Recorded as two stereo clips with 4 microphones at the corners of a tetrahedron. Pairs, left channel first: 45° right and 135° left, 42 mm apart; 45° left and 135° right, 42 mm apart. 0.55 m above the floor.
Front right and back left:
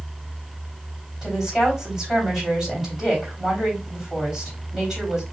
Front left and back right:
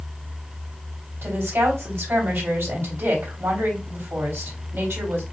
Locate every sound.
1.2 s a woman speaking: 140° right, 3 m